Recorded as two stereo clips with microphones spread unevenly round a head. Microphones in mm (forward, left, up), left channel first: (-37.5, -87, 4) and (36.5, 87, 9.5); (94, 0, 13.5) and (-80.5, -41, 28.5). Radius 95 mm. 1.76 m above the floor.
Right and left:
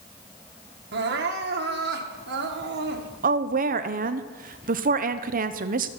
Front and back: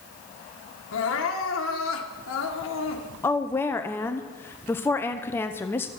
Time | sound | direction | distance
0.9 | crying | 35° left | 1.3 m
3.2 | a woman speaking | 95° left | 0.7 m